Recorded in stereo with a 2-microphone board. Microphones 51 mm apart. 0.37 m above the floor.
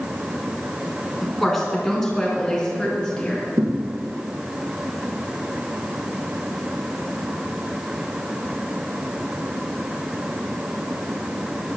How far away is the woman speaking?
About 4 m.